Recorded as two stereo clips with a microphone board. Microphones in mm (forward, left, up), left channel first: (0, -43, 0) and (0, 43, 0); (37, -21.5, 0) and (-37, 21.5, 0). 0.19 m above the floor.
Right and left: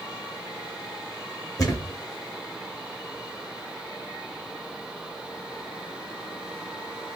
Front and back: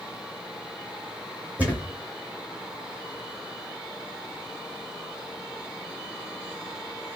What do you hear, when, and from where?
1.6 s a thud: 140° right, 2 m